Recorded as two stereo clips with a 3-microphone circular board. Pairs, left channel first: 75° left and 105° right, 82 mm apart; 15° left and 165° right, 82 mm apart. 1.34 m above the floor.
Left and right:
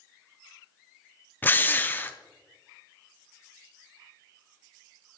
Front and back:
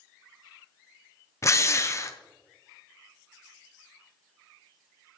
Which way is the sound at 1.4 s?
25° left.